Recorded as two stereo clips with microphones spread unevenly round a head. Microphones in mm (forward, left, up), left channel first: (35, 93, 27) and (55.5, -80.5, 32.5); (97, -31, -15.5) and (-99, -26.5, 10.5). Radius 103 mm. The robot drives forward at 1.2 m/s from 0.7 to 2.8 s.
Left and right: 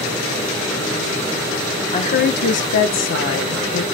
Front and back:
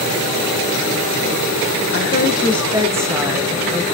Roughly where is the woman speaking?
Ahead left.